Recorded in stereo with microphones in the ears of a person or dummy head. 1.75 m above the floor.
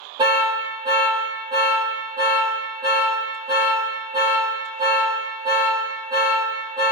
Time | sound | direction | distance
0.2 | an alarm | 20° right (ahead or behind) | 0.9 m